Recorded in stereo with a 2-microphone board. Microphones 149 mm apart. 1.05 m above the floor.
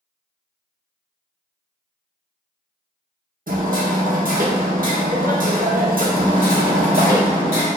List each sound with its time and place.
3.5 s hammering: 70° right (ahead or behind), 0.8 m
6.2 s hammering: 80° left, 1.5 m